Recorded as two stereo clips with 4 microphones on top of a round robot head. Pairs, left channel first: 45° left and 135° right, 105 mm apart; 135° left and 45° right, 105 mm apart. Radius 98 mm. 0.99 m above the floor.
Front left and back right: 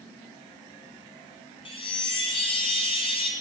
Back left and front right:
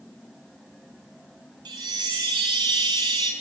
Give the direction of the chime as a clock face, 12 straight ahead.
12 o'clock.